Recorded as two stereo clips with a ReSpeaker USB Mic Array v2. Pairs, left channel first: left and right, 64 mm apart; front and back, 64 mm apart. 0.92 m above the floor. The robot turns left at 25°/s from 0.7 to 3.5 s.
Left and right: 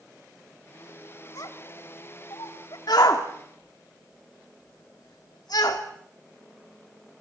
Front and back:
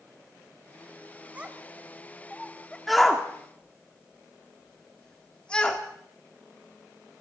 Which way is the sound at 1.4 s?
110° left.